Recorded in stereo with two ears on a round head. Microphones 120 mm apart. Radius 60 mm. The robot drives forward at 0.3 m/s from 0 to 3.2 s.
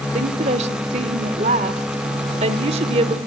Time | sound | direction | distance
0.1 | a woman speaking | 50° right (ahead or behind) | 1.5 m